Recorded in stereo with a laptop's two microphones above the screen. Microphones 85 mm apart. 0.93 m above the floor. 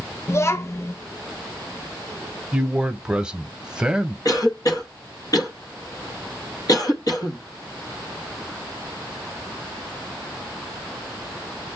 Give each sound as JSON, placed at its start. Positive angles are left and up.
{"t": 0.3, "sound": "a child speaking", "side_deg": 35, "distance_m": 0.6}
{"t": 2.5, "sound": "a man speaking", "side_deg": -10, "distance_m": 0.9}
{"t": 4.2, "sound": "a cough", "side_deg": 45, "distance_m": 0.9}